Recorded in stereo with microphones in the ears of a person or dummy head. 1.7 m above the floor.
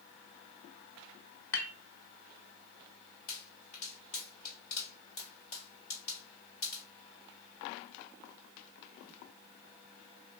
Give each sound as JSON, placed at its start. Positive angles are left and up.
{"t": 1.5, "sound": "dishes clattering", "side_deg": 15, "distance_m": 1.3}
{"t": 3.3, "sound": "a pop", "side_deg": 50, "distance_m": 1.7}